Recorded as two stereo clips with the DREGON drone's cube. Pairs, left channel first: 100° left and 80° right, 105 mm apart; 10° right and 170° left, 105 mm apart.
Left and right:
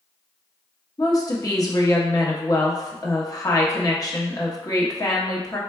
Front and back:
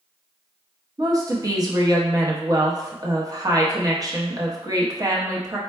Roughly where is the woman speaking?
Behind left.